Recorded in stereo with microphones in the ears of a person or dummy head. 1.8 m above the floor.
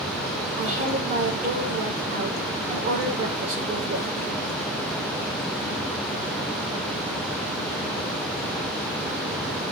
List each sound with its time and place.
0.6 s a woman speaking: 40° right (ahead or behind), 2.5 m